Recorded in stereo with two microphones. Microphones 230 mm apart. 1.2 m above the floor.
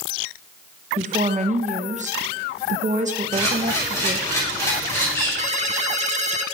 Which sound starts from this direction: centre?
A camera shutter, at 3.3 s.